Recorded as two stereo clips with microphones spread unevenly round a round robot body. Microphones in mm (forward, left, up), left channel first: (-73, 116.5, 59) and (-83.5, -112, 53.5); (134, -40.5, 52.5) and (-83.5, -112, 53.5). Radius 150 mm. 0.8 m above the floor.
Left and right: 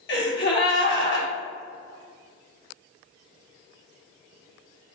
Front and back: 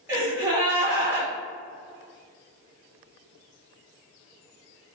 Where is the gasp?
115° left, 1.4 m.